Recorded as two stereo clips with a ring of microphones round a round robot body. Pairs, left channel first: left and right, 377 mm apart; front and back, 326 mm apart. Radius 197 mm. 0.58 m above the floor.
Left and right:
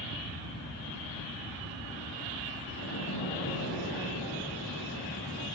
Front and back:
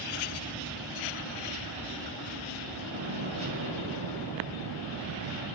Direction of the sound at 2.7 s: 150° left.